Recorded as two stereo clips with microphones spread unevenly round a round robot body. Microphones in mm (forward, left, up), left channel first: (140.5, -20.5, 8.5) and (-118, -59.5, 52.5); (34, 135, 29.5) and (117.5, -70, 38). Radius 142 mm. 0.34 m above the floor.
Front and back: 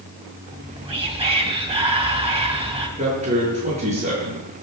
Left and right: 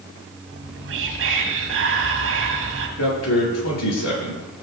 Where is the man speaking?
120° left, 7.5 m.